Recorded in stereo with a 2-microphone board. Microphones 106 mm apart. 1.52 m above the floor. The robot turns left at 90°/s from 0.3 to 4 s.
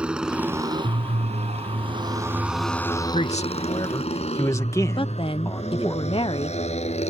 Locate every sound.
0.0 s a motorcycle: 10° right (ahead or behind); by 7.1 s 75° left (ahead or behind)
3.1 s a man speaking: 105° left; by 6.0 s 30° left
5.0 s a woman speaking: 55° left (ahead or behind)